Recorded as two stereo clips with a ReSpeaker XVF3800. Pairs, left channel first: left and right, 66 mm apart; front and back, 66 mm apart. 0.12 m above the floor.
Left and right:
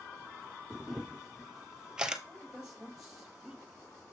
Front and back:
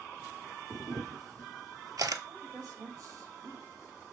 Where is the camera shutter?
165° right, 0.9 m.